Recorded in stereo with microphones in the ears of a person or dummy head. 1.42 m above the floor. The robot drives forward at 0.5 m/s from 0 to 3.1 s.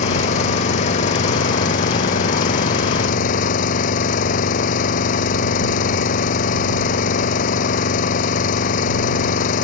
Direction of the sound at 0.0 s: 45° left (ahead or behind).